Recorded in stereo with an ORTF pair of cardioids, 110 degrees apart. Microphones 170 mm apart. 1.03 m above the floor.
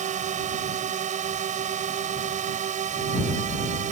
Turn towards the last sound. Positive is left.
turn(degrees=-45)